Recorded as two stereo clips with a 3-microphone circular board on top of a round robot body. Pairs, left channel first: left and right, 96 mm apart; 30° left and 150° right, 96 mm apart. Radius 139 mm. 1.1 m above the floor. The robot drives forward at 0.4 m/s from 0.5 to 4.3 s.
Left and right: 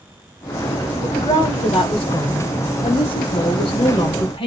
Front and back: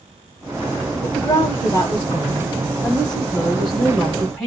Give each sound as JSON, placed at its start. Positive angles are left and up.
{"t": 1.0, "sound": "a woman speaking", "azimuth_deg": 75, "distance_m": 1.6}